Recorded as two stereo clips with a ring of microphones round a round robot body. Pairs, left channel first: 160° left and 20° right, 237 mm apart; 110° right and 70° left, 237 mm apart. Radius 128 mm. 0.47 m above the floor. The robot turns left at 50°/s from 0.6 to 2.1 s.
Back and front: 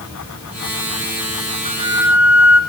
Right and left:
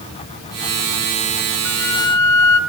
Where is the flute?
85° right, 0.7 m; by 2.6 s 110° right, 0.7 m.